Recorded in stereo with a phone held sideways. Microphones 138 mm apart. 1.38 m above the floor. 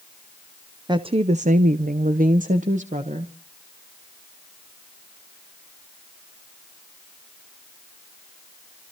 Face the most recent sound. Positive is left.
turn(degrees=-55)  # may be behind; listen again after turning